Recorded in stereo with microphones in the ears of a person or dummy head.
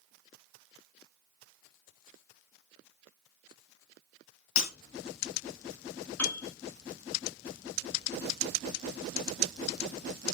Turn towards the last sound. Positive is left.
turn(degrees=15)  # may be behind; listen again after turning